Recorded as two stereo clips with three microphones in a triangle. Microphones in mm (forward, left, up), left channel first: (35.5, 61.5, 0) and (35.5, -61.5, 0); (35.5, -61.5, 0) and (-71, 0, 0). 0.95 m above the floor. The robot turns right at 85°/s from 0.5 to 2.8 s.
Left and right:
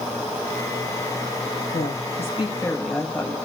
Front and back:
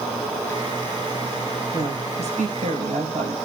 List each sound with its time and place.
1.7 s a woman speaking: 80° left, 4.5 m; by 3.4 s 170° left, 4.5 m